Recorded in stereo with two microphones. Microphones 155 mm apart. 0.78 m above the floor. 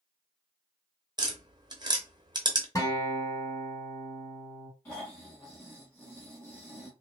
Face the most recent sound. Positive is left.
turn(degrees=15)  # may be behind; listen again after turning